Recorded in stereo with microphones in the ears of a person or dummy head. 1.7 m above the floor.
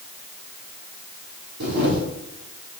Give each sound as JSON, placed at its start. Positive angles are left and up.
{"t": 1.6, "sound": "a camera shutter", "side_deg": -60, "distance_m": 3.5}